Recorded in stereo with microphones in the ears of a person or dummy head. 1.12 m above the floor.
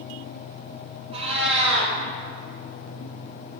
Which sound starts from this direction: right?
A cat meowing, at 1.1 s.